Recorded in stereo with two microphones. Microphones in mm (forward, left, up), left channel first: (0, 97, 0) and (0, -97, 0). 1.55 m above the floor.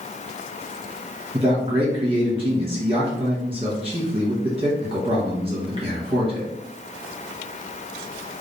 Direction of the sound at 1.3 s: 25° right (ahead or behind).